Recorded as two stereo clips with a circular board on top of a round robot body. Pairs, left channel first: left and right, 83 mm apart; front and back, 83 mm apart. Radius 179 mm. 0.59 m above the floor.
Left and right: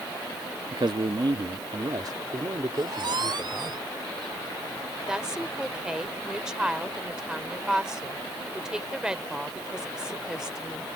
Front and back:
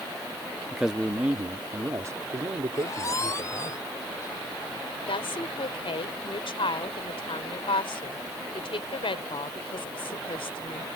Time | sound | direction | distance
0.7 | a man speaking | 90° right | ?
2.7 | a squeak | 55° right | ?
5.1 | a woman speaking | 10° right | ?